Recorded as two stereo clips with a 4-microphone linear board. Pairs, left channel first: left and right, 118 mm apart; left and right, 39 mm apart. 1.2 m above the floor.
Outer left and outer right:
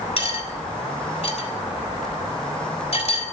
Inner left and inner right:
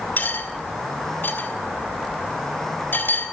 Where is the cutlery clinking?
60° left (ahead or behind), 3.5 m.